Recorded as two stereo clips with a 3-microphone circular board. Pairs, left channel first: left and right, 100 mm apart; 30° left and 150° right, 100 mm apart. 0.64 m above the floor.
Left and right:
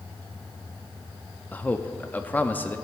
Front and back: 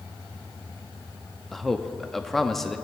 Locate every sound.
1.5 s a man speaking: 110° left, 0.6 m